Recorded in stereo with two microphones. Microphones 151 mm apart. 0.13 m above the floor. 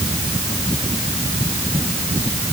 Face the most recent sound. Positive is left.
No sound to turn to.